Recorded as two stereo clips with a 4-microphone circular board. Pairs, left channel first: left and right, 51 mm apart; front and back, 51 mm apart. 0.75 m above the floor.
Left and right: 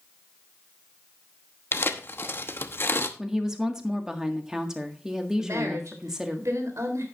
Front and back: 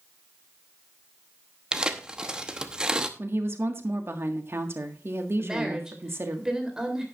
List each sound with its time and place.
1.7 s tearing paper: 110° left, 0.9 m
3.2 s a woman speaking: 165° right, 1.6 m
5.4 s a woman speaking: 105° right, 3.5 m